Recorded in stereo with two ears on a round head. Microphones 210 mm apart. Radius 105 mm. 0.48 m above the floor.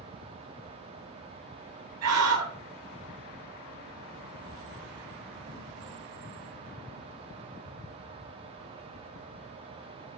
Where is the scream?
75° right (ahead or behind), 8 m.